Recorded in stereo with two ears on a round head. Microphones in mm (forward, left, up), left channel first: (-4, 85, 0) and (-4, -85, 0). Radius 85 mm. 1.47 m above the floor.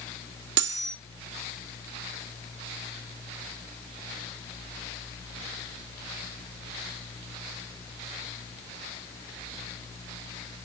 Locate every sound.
0.6 s cutlery clinking: 65° right (ahead or behind), 1.6 m